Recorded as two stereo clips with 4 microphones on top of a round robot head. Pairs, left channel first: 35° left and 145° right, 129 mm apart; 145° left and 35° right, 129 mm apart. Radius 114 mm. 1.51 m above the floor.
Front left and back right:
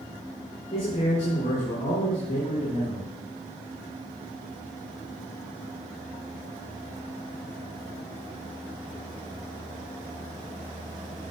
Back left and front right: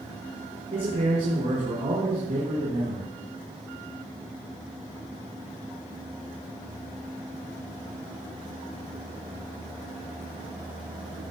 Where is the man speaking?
5° right, 5.5 m.